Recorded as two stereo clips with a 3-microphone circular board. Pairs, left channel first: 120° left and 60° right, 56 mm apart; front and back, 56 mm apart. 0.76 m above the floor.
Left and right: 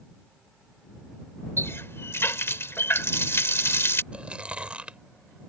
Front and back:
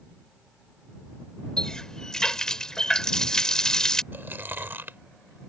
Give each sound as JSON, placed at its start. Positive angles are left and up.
{"t": 1.6, "sound": "a running tap", "azimuth_deg": 80}
{"t": 4.1, "sound": "chewing", "azimuth_deg": -125}